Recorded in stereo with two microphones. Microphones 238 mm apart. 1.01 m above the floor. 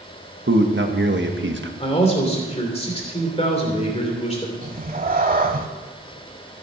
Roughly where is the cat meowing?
Right.